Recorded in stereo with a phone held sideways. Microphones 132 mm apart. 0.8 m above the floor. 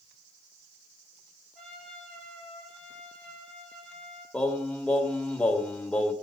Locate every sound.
1.6 s a trumpet: centre (ahead or behind), 8 m
4.3 s singing: 10° left (ahead or behind), 1.7 m